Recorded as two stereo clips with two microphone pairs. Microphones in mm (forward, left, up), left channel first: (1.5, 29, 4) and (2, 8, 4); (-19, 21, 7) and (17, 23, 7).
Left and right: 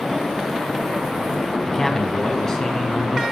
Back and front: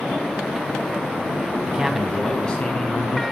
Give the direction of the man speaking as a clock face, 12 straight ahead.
11 o'clock.